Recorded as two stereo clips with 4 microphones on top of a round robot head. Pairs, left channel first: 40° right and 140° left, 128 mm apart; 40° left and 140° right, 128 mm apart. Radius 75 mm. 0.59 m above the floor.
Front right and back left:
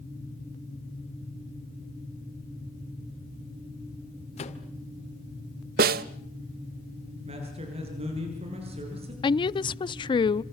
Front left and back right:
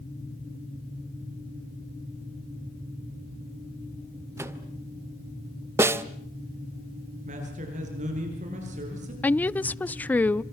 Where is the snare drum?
145° left, 1.0 m.